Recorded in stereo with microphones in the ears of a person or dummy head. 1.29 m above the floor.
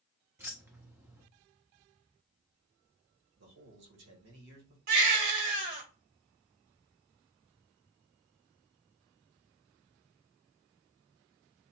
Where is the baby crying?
70° right (ahead or behind), 1.6 m.